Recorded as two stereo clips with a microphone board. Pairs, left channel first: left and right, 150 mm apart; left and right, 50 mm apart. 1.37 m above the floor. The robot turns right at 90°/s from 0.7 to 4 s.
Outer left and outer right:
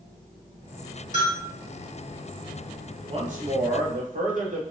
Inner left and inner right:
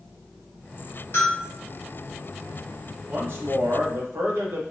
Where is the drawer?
No drawer in this recording.